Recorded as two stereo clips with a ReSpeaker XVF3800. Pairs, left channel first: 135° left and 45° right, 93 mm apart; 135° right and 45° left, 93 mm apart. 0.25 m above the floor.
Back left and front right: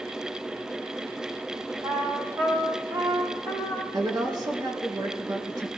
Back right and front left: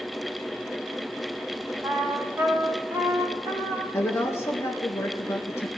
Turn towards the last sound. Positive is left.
turn(degrees=-80)